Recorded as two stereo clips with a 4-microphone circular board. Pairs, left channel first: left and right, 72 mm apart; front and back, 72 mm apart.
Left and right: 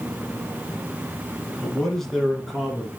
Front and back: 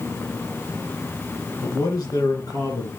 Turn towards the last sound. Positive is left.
turn(degrees=-5)